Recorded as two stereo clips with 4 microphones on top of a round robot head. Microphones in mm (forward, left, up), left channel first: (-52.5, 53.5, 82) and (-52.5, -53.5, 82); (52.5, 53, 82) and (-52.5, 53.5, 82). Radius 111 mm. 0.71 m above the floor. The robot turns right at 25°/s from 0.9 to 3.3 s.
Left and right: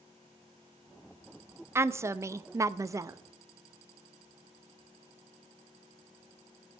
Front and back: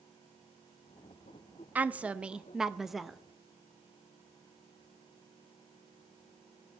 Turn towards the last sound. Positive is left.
turn(degrees=-85)